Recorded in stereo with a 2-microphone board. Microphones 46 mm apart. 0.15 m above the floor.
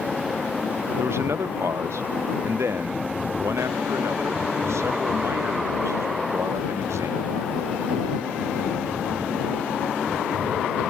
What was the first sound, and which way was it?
A man speaking, 75° right (ahead or behind).